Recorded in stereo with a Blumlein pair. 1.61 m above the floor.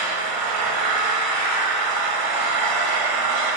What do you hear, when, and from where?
0.0 s an engine running: 40° right, 1.3 m